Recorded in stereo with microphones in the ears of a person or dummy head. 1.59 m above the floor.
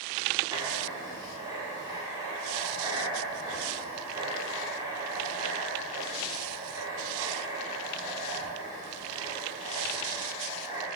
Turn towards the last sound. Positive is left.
turn(degrees=-20)  # may be behind; listen again after turning